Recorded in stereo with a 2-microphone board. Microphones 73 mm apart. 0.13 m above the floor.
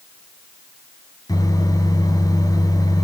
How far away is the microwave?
About 1.5 m.